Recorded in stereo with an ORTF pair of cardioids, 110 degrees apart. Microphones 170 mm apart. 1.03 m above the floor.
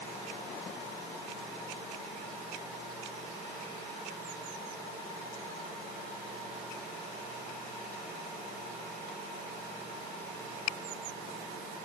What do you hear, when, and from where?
Only background noise.